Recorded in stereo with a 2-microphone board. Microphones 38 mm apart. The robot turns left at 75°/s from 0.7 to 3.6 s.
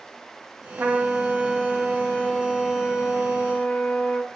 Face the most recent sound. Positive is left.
turn(degrees=40)